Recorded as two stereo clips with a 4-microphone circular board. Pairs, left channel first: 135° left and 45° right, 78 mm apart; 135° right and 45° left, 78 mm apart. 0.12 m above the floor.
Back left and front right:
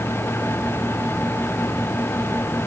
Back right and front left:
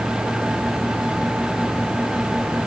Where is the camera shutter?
No camera shutter in this recording.